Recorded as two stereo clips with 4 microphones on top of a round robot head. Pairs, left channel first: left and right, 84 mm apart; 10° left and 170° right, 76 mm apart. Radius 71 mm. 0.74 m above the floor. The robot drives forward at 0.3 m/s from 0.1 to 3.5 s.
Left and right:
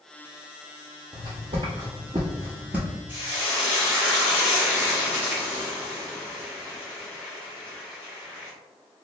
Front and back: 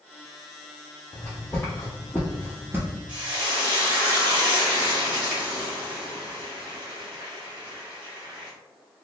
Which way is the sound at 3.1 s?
165° left.